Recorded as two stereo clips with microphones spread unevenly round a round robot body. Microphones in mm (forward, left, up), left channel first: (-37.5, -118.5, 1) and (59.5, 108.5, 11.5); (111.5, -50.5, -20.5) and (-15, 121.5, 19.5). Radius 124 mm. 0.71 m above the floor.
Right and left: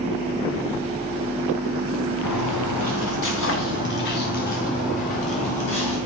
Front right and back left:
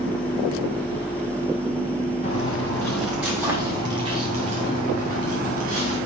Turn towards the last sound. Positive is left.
turn(degrees=180)